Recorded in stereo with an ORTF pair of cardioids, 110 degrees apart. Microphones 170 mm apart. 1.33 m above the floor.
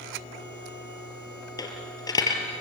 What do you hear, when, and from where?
1.6 s a dropped coin: 25° left, 4.5 m